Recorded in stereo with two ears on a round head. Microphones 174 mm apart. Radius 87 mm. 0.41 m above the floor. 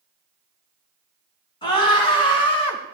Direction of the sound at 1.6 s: 25° left (ahead or behind).